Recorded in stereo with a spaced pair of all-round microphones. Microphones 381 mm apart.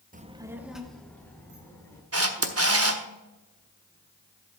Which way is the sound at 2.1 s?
40° right (ahead or behind).